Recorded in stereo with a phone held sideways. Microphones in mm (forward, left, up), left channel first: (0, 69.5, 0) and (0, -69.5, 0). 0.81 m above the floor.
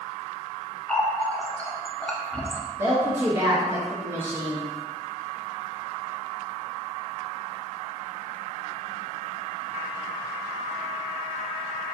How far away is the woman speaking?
About 0.9 m.